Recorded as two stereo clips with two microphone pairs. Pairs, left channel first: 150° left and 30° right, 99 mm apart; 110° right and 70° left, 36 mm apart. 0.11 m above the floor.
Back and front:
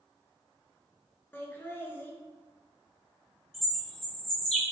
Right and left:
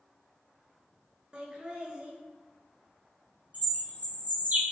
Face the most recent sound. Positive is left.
turn(degrees=65)